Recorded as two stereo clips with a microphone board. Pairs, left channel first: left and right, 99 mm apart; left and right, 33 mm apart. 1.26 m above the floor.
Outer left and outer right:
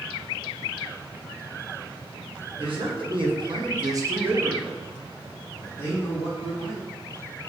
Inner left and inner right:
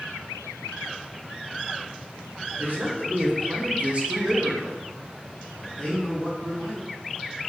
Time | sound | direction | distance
2.6 | a man speaking | 60° right (ahead or behind) | 1.0 m